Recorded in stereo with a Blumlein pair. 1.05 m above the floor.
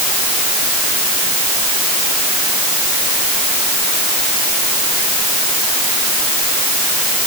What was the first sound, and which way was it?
Only background noise.